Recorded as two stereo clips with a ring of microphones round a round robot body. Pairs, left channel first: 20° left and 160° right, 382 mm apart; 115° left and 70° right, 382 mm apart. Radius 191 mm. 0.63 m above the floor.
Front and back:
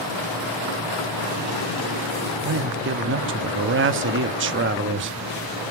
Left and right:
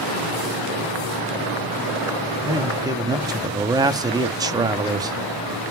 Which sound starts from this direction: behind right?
A man speaking, at 2.4 s.